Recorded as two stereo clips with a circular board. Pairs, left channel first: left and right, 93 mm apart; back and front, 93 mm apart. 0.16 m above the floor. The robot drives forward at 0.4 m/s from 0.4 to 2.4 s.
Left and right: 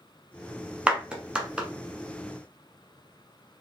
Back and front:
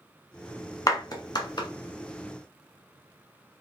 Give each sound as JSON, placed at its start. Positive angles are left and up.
{"t": 0.9, "sound": "a clap", "azimuth_deg": -160, "distance_m": 1.2}